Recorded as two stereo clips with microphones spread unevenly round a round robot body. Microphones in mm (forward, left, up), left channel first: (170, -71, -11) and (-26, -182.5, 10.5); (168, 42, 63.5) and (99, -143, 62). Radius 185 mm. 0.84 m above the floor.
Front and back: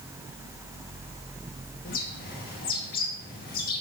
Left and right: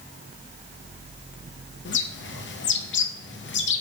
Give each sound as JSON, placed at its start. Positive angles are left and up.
{"t": 1.9, "sound": "a bird", "azimuth_deg": 80, "distance_m": 0.9}